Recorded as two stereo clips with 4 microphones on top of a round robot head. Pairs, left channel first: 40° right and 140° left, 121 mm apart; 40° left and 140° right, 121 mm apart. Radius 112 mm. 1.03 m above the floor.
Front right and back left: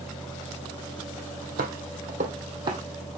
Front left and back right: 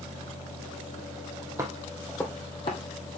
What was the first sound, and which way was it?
Footsteps, 150° left.